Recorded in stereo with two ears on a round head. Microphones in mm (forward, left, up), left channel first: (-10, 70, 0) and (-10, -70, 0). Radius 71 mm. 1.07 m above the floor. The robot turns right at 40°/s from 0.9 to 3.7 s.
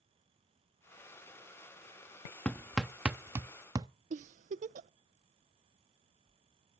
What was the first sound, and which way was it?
Hammering, 10° left (ahead or behind).